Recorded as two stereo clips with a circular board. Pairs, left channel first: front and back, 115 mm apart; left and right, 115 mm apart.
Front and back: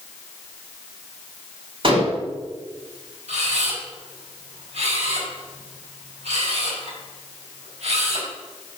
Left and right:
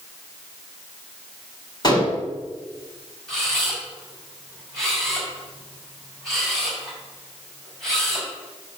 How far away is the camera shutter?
About 4.5 m.